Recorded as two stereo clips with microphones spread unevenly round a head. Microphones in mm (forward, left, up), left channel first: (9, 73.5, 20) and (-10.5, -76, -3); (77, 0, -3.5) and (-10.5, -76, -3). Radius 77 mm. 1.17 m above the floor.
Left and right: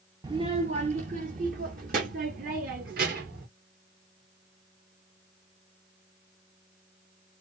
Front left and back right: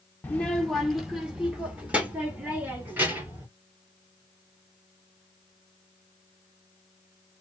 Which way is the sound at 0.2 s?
30° right.